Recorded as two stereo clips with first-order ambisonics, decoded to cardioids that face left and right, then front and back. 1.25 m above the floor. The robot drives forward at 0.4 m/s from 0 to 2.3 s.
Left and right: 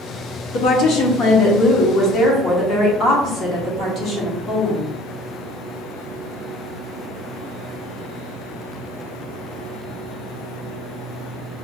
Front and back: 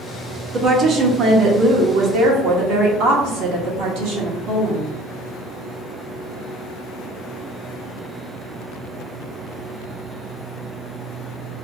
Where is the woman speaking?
110° left, 0.8 m; by 4.9 s 145° left, 1.2 m.